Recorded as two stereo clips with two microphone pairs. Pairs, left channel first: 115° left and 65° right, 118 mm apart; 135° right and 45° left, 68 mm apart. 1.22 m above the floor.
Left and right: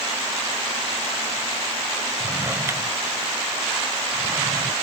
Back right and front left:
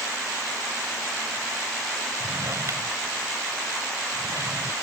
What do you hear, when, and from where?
2.2 s a drawer: straight ahead